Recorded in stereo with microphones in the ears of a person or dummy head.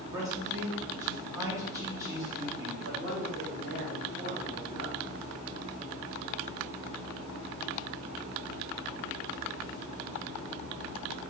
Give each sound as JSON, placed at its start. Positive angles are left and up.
{"t": 0.1, "sound": "a man speaking", "side_deg": -15, "distance_m": 2.0}
{"t": 2.8, "sound": "a man speaking", "side_deg": -45, "distance_m": 2.0}